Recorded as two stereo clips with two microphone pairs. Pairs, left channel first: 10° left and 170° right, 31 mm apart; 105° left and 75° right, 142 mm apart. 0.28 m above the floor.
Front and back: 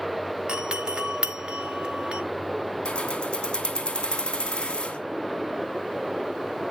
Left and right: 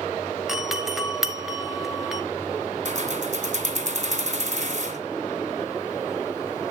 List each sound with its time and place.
0.5 s a doorbell: 165° right, 1.4 m
2.9 s keys jangling: 50° right, 1.9 m